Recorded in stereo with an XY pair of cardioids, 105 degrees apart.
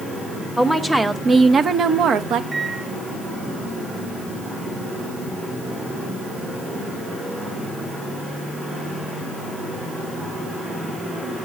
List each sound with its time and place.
0.6 s a woman speaking: 5° right, 0.9 m; by 2.4 s 75° right, 1.0 m
2.5 s a microwave: 25° right, 2.5 m